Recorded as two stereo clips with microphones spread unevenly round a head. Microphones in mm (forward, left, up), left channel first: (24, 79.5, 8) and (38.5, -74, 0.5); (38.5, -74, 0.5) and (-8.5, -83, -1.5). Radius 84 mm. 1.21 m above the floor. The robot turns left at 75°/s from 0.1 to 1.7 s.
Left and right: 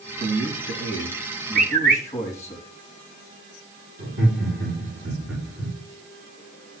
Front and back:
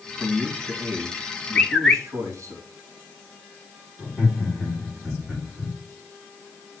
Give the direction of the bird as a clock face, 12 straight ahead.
2 o'clock.